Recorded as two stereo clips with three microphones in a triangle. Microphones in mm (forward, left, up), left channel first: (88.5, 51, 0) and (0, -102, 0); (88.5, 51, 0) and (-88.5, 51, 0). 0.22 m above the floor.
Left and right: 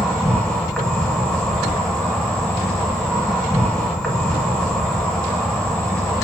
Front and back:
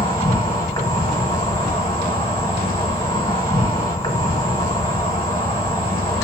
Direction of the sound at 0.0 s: 25° right.